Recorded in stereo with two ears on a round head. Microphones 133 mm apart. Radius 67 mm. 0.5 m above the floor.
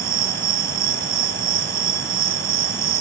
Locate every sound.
0.0 s an insect: 70° right (ahead or behind)